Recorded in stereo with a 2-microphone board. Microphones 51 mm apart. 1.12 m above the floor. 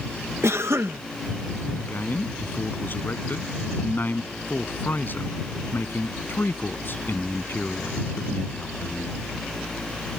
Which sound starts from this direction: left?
A man speaking, at 1.8 s.